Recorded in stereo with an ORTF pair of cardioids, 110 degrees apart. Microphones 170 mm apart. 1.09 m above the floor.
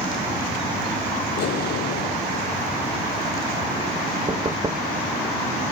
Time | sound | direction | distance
1.4 | an explosion | 65° left | ?
4.3 | knocking | 25° right | ?